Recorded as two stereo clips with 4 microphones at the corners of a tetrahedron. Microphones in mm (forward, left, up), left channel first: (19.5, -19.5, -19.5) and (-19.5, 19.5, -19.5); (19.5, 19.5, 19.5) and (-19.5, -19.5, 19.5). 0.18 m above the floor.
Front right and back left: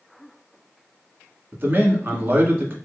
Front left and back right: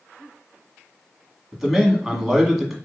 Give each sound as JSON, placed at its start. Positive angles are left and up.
{"t": 1.5, "sound": "a man speaking", "azimuth_deg": 140, "distance_m": 1.4}